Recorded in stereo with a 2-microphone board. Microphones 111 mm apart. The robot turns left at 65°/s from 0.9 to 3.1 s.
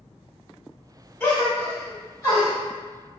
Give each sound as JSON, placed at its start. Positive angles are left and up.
{"t": 1.2, "sound": "a gasp", "side_deg": 10, "distance_m": 1.2}